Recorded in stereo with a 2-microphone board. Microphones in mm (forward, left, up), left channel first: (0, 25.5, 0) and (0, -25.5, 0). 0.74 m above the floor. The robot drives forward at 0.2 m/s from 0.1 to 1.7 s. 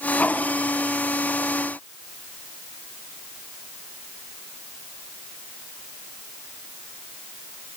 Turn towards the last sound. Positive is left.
No sound to turn to.